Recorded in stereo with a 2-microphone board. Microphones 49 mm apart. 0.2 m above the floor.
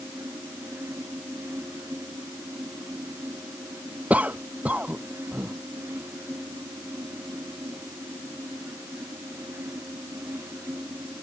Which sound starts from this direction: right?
A cough, at 4.1 s.